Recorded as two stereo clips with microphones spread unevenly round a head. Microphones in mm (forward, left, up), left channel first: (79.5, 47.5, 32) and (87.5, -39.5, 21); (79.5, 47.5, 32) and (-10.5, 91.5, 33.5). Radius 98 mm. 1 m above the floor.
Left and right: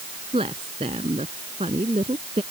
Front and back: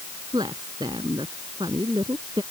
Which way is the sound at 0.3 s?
135° right.